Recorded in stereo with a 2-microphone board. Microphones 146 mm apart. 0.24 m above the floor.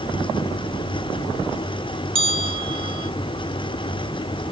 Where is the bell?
35° right (ahead or behind).